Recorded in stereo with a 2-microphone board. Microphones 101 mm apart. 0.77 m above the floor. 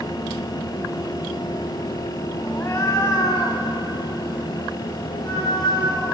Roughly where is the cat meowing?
Left.